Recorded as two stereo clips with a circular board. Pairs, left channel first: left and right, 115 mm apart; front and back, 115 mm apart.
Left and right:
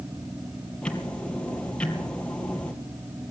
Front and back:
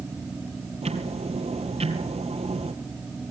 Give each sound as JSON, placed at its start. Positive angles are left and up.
{"t": 0.8, "sound": "ticking", "azimuth_deg": 170, "distance_m": 2.5}